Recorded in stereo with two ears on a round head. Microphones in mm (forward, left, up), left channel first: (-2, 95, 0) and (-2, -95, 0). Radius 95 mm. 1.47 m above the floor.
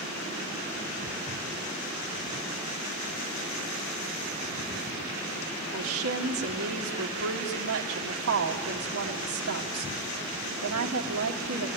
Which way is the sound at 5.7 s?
70° right (ahead or behind).